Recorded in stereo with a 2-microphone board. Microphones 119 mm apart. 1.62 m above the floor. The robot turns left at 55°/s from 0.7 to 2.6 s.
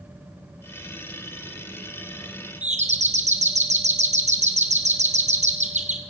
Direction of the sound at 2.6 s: 75° right (ahead or behind).